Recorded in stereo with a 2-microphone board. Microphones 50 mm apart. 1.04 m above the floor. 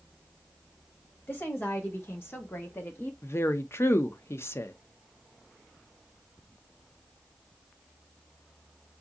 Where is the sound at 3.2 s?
55° left (ahead or behind), 0.5 m.